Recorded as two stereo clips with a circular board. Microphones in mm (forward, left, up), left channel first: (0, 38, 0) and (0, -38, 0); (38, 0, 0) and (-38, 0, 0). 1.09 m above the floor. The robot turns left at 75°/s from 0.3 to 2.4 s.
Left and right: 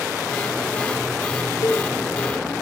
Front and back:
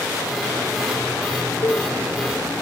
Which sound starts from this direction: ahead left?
A cowbell, at 1.6 s.